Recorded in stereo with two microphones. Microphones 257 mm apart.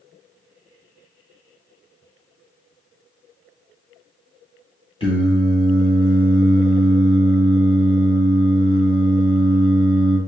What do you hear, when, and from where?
5.0 s singing: 20° left (ahead or behind), 1.5 m